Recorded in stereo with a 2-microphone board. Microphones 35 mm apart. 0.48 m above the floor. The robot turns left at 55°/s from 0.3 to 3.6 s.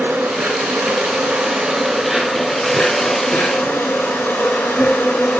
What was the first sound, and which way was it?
An insect, 75° right.